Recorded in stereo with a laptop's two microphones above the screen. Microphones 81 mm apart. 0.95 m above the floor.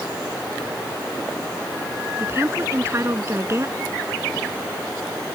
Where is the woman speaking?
35° right (ahead or behind).